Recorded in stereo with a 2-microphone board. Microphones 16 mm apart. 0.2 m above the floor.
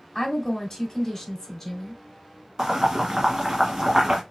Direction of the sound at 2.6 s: 45° right (ahead or behind).